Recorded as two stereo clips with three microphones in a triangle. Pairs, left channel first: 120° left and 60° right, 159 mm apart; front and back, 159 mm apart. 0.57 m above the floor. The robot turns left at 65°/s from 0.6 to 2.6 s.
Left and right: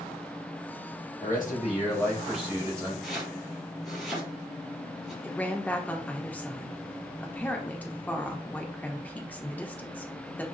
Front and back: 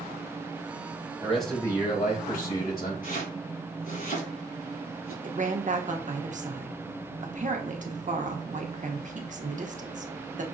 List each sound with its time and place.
1.2 s a man speaking: 100° left, 2.5 m; by 2.9 s 10° left, 2.5 m
3.0 s chopping: 30° left, 3.5 m
5.2 s a woman speaking: 165° right, 0.9 m